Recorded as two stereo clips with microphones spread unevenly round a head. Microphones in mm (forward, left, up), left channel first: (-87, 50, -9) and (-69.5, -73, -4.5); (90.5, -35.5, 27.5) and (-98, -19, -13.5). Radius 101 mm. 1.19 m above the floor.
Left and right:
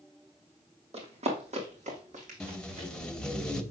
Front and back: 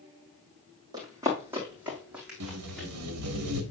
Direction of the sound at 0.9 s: 110° right.